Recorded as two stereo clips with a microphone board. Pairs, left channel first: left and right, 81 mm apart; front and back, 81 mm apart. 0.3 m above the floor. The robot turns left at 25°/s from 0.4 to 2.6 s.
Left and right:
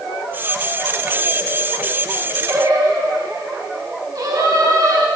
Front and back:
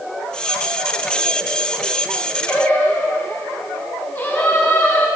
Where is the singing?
60° right, 1.3 m; by 5.1 s 65° right, 1.3 m.